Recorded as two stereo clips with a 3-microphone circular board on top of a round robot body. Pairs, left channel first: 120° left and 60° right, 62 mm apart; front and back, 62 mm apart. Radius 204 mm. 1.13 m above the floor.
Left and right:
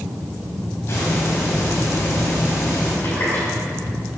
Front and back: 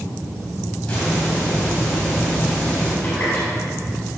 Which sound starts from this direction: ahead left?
A running tap, at 3.0 s.